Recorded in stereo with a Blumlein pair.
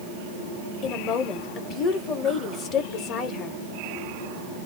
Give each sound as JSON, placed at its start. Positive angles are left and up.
{"t": 0.8, "sound": "a woman speaking", "azimuth_deg": 30, "distance_m": 0.9}